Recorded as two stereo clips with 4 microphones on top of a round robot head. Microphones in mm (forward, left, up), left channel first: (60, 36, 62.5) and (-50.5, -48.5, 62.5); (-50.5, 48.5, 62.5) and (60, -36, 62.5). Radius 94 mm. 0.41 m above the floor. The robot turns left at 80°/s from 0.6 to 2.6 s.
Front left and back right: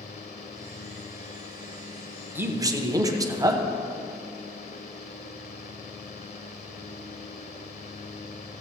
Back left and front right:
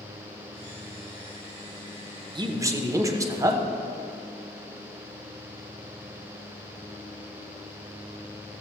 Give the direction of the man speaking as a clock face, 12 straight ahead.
2 o'clock.